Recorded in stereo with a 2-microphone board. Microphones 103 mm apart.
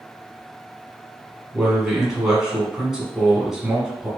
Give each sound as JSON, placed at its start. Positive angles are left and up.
{"t": 1.5, "sound": "a man speaking", "side_deg": -5, "distance_m": 1.1}